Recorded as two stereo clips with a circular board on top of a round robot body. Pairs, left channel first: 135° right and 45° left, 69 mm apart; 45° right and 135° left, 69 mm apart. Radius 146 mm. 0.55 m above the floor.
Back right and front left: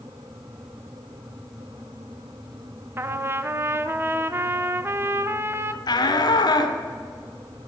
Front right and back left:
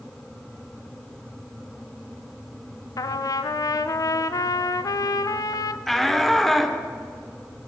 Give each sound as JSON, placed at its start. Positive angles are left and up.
{"t": 3.0, "sound": "a trumpet", "azimuth_deg": -15, "distance_m": 0.6}
{"t": 5.9, "sound": "a shout", "azimuth_deg": -130, "distance_m": 1.8}